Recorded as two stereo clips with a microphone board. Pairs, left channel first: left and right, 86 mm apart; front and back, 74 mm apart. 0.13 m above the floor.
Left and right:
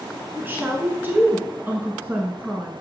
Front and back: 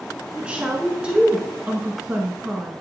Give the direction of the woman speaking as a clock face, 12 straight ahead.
4 o'clock.